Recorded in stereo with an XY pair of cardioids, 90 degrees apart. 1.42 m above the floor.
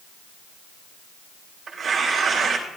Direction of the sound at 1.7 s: 60° right.